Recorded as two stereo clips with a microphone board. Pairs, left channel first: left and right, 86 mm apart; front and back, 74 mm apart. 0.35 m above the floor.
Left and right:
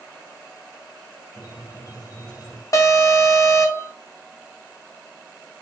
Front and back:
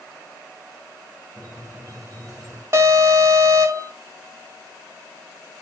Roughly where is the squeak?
Behind left.